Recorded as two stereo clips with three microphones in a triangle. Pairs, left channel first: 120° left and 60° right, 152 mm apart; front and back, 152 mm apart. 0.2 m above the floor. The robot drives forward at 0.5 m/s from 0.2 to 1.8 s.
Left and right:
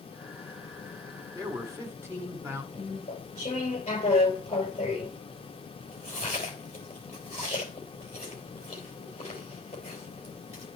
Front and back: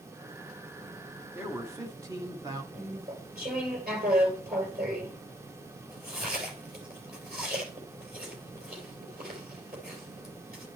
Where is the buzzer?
No buzzer in this recording.